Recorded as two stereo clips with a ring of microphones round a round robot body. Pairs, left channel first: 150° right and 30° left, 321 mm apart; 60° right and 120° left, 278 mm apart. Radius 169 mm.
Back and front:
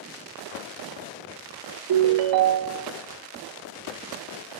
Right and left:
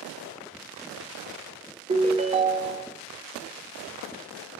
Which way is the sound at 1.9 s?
50° left.